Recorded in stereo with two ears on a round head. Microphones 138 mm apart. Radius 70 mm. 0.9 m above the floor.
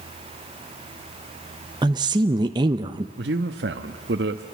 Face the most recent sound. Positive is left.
turn(degrees=-80)